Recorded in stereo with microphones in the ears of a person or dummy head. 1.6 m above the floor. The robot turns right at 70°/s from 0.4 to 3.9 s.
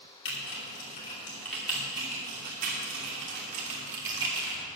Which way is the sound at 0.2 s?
70° left (ahead or behind).